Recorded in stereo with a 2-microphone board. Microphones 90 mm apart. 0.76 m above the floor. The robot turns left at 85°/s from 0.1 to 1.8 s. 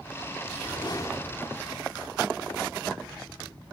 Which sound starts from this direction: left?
A whoosh, at 0.5 s.